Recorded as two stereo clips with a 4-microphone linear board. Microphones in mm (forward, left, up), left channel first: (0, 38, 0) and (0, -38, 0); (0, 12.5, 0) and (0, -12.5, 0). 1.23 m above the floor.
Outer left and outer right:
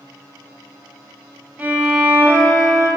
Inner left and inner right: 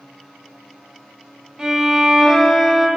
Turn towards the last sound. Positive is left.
turn(degrees=-20)  # may be behind; listen again after turning